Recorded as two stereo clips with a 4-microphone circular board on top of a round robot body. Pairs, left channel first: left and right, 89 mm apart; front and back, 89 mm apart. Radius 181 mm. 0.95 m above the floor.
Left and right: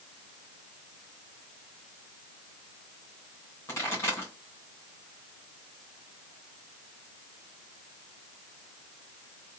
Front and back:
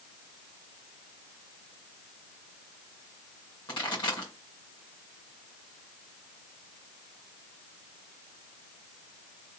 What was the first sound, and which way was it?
A pop, 30° left.